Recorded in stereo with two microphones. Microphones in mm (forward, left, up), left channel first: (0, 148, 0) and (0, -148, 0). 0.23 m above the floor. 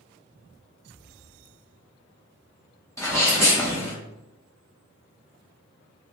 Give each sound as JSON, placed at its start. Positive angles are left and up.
{"t": 3.0, "sound": "a sneeze", "side_deg": 10, "distance_m": 1.7}